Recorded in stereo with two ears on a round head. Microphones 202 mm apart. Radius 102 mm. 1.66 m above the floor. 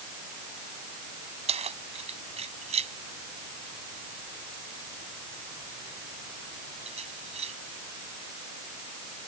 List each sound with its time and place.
1.5 s keys jangling: 30° right (ahead or behind)